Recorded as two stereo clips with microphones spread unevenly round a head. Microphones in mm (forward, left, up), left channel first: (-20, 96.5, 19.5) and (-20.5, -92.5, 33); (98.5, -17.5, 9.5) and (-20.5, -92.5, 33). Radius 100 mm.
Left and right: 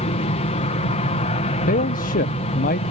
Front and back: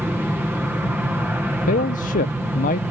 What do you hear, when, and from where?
0.0 s an aircraft: 130° left
1.7 s a man speaking: 45° left